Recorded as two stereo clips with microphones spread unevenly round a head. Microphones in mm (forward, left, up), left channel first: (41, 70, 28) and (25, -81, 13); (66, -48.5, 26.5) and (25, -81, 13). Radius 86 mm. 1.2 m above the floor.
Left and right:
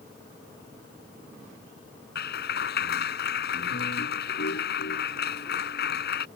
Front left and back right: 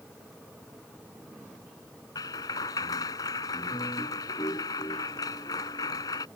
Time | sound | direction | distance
2.1 | a clap | 70° left | ?